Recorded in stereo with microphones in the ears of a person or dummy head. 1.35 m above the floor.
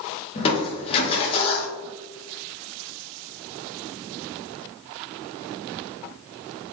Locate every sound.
0.3 s crushing: 30° left (ahead or behind), 0.6 m